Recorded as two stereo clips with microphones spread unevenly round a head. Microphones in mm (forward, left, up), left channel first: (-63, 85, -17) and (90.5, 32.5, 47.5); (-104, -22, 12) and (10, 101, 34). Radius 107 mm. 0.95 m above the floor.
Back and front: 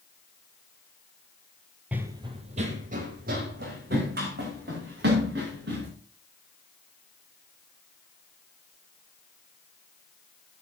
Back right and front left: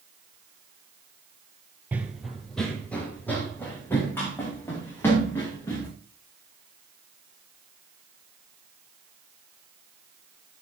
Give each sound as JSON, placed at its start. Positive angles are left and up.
{"t": 1.9, "sound": "running footsteps", "azimuth_deg": -15, "distance_m": 1.0}